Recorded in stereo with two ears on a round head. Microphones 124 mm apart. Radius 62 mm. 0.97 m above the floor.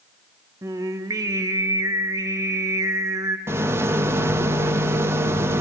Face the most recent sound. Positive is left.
turn(degrees=-15)  # may be behind; listen again after turning